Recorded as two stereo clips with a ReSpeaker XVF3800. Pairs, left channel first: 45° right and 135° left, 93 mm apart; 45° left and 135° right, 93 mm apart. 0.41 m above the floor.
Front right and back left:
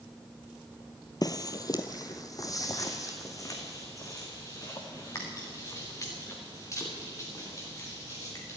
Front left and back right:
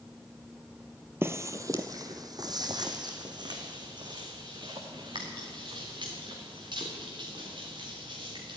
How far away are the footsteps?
About 0.6 m.